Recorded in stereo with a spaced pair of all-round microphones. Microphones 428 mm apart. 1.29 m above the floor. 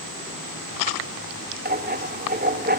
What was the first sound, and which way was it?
Writing, 20° right (ahead or behind).